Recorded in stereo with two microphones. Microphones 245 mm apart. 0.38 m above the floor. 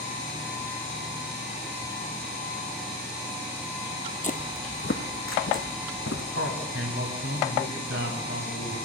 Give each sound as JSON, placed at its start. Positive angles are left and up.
{"t": 4.2, "sound": "footsteps", "side_deg": 30, "distance_m": 0.7}
{"t": 6.3, "sound": "a man speaking", "side_deg": -60, "distance_m": 2.5}